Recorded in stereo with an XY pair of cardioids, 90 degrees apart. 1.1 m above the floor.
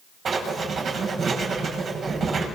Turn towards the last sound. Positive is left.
turn(degrees=-60)